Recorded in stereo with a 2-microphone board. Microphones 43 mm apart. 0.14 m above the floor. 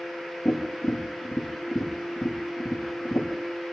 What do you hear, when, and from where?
0.5 s tapping: 60° left (ahead or behind), 7.5 m